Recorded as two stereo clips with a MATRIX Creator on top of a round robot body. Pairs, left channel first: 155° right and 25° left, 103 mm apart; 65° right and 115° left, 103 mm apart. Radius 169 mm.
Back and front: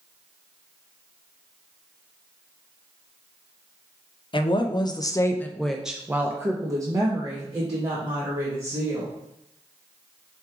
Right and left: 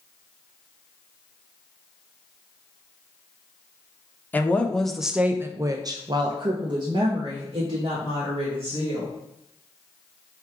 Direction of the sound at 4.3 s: 140° right.